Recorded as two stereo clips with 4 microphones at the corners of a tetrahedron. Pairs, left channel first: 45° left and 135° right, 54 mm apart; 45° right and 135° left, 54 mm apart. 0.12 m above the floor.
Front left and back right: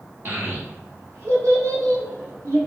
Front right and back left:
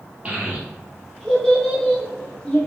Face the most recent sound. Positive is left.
turn(degrees=-110)